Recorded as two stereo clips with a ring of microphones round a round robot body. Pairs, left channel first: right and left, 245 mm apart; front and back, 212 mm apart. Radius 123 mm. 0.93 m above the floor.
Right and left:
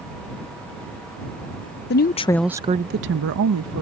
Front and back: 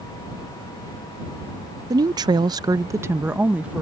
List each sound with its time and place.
1.9 s a woman speaking: 110° right; by 3.8 s 95° left